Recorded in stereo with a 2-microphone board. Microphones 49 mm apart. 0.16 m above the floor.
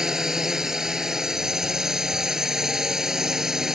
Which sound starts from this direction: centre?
A drone, at 0.0 s.